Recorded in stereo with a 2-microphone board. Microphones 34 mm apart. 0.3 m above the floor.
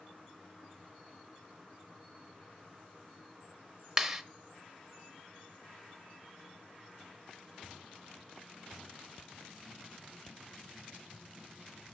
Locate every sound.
4.0 s a clap: 10° right (ahead or behind), 0.7 m